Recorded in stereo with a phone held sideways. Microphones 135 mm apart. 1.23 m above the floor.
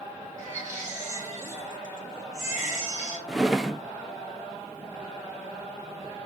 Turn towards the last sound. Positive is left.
turn(degrees=-5)  # may be behind; listen again after turning